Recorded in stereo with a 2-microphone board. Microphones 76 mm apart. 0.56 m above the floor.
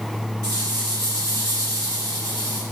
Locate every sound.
0.4 s a rattle: 40° right (ahead or behind), 5 m